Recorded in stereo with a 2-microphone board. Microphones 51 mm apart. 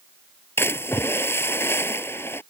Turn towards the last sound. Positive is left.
turn(degrees=45)  # may be behind; listen again after turning